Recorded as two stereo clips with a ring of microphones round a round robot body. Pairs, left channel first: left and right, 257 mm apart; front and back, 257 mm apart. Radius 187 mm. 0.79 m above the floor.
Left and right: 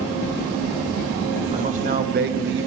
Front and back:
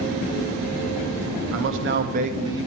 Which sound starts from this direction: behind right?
A man speaking, at 1.5 s.